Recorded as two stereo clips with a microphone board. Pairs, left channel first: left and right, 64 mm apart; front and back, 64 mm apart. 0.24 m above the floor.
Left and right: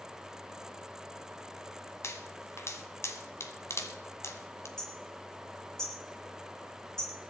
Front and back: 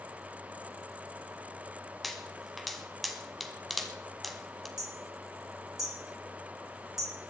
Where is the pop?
90° left, 1.7 m.